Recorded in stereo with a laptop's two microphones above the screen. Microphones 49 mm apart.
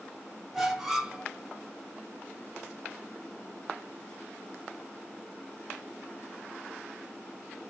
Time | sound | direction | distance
0.5 | a squeak | 5° right (ahead or behind) | 0.8 m